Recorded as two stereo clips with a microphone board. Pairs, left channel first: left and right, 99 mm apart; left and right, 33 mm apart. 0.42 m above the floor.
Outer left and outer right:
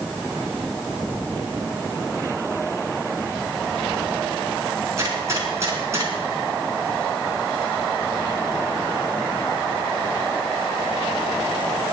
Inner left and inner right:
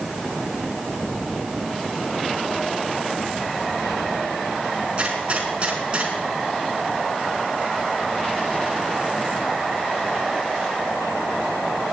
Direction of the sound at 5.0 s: 30° right (ahead or behind).